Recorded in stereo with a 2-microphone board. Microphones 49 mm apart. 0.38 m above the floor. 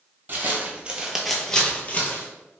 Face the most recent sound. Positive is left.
turn(degrees=45)  # may be behind; listen again after turning